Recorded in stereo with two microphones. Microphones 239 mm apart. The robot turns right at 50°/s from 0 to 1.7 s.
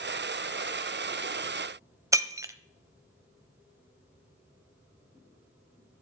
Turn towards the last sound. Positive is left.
turn(degrees=-15)  # may be behind; listen again after turning